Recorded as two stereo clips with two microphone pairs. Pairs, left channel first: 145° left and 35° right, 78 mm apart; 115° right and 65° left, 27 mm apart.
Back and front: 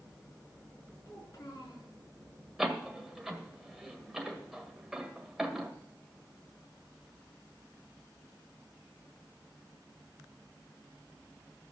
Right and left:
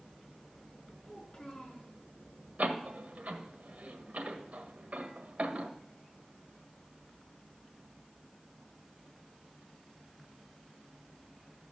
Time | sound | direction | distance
1.1 | a child speaking | 175° right | 6.5 m
2.6 | a door slam | 55° left | 1.8 m